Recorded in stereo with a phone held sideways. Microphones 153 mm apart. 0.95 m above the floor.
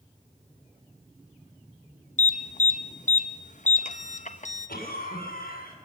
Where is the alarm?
55° left (ahead or behind), 0.9 m.